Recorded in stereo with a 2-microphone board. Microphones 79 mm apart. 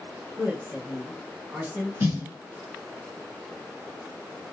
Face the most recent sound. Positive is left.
turn(degrees=-30)  # may be behind; listen again after turning